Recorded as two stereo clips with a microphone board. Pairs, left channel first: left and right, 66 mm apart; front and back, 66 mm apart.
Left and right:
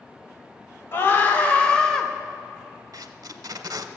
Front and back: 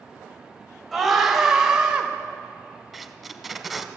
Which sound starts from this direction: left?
A scream, at 0.9 s.